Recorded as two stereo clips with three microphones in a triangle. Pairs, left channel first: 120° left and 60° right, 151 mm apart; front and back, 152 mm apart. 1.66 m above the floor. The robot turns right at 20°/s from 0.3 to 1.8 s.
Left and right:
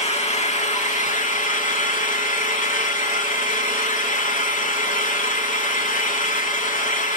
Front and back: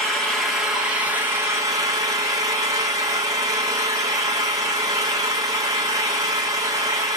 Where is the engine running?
85° left, 1.5 m; by 7.2 s 115° left, 1.5 m.